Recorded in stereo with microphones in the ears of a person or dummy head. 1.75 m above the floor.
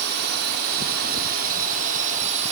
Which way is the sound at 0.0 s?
60° right (ahead or behind).